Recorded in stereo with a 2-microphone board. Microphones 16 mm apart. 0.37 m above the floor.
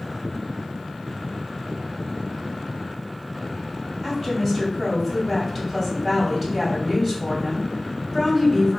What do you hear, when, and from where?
4.0 s a woman speaking: 5° right (ahead or behind), 2.0 m